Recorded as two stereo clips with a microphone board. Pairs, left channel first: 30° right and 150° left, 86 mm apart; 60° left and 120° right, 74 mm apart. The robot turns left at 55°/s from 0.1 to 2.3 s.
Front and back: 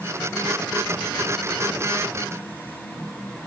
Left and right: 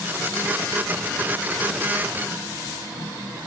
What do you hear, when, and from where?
Only background noise.